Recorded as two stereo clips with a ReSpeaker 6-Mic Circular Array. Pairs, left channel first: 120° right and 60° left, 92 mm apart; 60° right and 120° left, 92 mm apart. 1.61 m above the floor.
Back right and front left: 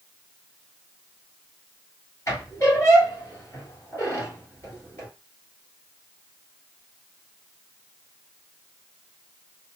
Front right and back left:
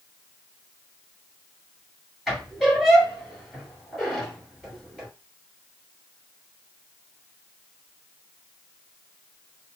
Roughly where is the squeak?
Behind right.